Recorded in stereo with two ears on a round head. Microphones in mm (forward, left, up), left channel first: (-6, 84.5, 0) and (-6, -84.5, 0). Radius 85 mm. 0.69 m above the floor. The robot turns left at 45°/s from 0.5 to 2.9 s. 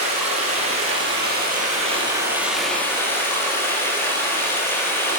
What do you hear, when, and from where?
0.0 s running water: 85° right, 8.5 m; by 5.2 s 165° left, 8.5 m